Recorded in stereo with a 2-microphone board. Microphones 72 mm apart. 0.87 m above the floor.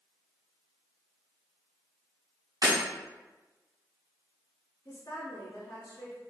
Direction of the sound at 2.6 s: 65° right (ahead or behind).